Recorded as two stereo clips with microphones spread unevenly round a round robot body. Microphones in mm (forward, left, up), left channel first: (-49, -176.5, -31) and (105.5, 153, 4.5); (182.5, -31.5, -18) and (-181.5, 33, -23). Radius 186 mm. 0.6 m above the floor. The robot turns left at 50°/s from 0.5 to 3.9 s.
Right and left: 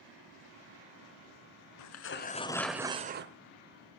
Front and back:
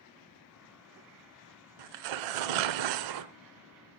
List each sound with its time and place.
1.8 s tearing paper: 160° right, 0.8 m; by 4.0 s 95° left, 0.8 m